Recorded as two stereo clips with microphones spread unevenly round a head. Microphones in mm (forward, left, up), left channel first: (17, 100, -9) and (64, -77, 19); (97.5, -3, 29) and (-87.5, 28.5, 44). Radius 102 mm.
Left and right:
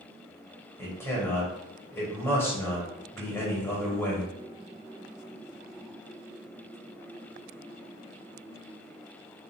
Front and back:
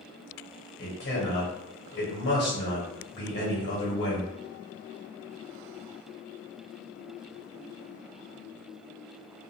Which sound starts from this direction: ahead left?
A man speaking, at 0.8 s.